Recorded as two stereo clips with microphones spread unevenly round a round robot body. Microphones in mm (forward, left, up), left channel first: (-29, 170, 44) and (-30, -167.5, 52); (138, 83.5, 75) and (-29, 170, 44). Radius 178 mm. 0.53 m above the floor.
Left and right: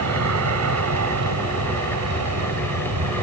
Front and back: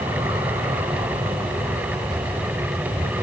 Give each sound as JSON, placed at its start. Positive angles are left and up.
{"t": 0.0, "sound": "an aircraft", "azimuth_deg": -130}